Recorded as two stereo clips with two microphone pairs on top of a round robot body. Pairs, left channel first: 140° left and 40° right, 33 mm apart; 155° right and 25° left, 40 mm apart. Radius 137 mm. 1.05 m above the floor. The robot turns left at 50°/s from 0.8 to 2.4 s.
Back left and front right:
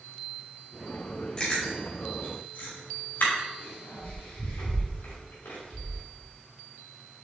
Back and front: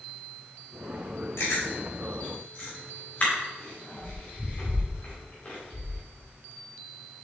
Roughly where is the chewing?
Behind right.